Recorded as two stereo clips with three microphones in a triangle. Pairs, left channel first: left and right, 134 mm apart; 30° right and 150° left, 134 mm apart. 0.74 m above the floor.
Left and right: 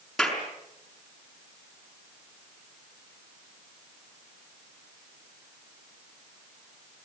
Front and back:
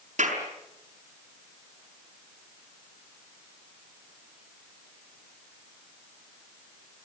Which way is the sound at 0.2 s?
Straight behind.